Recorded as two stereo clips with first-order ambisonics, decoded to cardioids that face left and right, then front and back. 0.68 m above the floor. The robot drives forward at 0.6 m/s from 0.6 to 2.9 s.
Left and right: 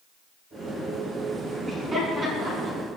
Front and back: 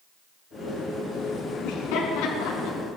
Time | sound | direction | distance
1.6 | laughter | 20° right | 6.5 m